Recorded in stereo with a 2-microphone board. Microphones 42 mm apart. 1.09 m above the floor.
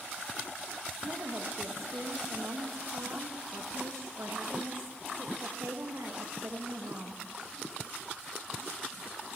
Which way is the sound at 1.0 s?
85° right.